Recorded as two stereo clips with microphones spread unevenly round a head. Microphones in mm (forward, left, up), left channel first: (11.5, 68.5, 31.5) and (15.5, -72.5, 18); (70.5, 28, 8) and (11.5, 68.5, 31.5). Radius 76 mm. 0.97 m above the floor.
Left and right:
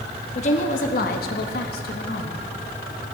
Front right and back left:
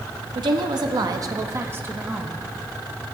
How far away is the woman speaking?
About 1.3 m.